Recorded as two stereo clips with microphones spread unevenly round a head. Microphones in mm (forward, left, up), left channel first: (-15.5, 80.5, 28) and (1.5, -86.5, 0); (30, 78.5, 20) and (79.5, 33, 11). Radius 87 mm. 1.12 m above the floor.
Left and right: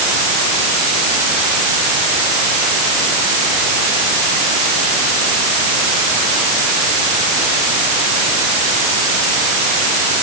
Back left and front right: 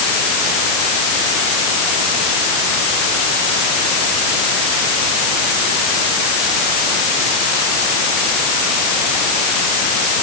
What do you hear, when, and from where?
Only background noise.